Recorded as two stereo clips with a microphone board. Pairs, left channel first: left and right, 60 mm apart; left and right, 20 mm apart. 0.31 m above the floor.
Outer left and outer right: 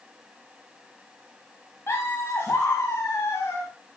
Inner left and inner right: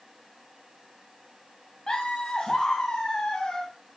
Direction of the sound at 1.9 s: 45° left (ahead or behind).